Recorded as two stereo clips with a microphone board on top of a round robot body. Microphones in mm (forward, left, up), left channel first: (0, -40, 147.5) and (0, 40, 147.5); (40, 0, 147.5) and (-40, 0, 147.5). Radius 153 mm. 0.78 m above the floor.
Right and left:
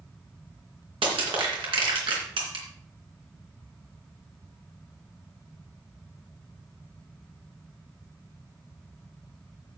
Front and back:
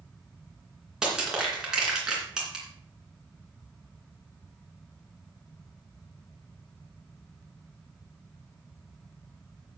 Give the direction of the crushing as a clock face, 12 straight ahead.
9 o'clock.